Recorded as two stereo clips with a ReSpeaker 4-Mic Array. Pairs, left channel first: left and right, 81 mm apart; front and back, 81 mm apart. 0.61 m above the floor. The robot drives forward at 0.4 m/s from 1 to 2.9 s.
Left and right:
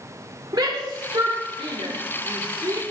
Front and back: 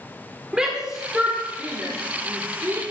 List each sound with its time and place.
0.5 s a shout: 100° right, 1.5 m; by 2.8 s 130° right, 1.7 m